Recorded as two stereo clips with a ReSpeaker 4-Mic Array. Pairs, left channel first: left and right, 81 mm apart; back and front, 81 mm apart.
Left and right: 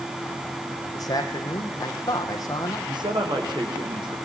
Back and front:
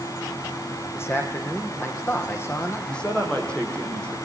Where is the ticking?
No ticking in this recording.